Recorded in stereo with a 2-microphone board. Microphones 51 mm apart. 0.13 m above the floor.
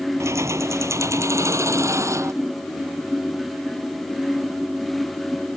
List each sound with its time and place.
0.2 s keys jangling: 65° right (ahead or behind); by 2.3 s 70° right (ahead or behind)